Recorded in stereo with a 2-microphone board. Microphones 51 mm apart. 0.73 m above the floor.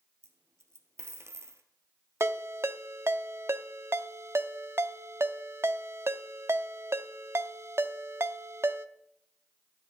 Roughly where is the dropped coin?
Right.